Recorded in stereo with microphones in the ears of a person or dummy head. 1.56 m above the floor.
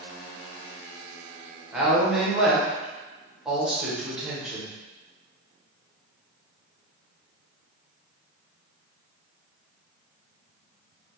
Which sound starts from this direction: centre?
A woman speaking, at 1.7 s.